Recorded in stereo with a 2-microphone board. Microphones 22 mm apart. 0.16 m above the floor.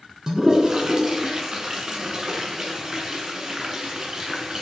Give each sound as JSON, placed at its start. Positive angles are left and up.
{"t": 0.3, "sound": "a toilet flushing", "side_deg": -30, "distance_m": 1.0}